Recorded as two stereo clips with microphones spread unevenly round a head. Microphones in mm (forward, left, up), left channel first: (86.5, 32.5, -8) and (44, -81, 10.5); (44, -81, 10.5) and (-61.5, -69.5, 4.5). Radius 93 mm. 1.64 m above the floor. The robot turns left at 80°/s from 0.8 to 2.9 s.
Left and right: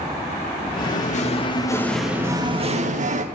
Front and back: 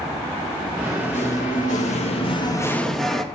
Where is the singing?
75° left, 2.5 m; by 3.2 s 95° right, 2.5 m.